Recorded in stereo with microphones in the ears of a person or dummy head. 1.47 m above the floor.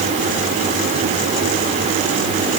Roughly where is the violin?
I don't hear a violin.